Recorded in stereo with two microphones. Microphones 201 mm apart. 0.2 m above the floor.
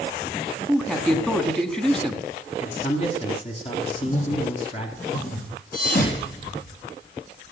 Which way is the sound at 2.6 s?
30° left (ahead or behind).